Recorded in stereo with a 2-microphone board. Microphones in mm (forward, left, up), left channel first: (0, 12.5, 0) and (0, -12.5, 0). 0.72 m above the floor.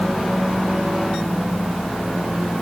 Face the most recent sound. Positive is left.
No sound to turn to.